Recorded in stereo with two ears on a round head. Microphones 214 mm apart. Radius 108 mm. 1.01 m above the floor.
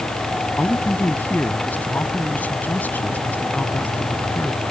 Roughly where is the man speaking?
Centre.